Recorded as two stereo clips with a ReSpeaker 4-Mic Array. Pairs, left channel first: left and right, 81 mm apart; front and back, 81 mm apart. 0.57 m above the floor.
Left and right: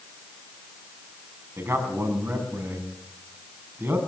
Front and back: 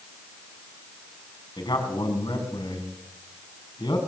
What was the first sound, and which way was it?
A man speaking, 30° right.